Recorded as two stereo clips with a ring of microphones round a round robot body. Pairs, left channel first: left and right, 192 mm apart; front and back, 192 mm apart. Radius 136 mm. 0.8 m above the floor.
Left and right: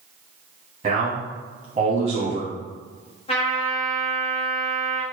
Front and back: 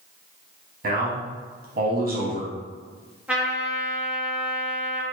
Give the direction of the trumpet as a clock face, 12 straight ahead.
9 o'clock.